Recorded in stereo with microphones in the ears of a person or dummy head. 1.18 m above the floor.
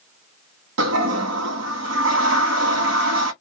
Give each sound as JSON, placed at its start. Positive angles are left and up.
{"t": 0.8, "sound": "a toilet flushing", "side_deg": -75, "distance_m": 1.3}